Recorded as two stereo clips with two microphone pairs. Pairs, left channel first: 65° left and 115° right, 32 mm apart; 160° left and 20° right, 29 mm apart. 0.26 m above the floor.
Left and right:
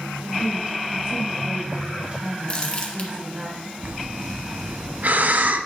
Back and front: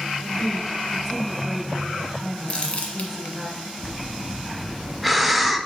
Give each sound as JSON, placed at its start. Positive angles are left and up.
{"t": 0.2, "sound": "a woman speaking", "azimuth_deg": -100, "distance_m": 1.6}
{"t": 2.5, "sound": "crumpling", "azimuth_deg": 115, "distance_m": 1.4}
{"t": 3.8, "sound": "breathing", "azimuth_deg": -105, "distance_m": 0.5}